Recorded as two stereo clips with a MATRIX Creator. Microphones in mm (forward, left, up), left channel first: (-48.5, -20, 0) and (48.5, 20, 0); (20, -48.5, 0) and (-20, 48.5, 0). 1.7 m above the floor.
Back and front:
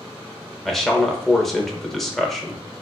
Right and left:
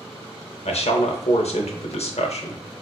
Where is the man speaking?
70° right, 0.7 m.